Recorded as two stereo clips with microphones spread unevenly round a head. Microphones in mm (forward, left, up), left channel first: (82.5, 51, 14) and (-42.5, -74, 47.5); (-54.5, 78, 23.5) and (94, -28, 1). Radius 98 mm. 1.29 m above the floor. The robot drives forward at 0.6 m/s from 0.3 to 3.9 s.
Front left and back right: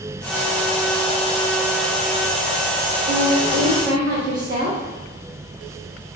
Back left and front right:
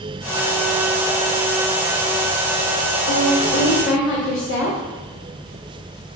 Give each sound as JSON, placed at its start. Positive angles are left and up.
{"t": 3.1, "sound": "a woman speaking", "azimuth_deg": 170, "distance_m": 0.8}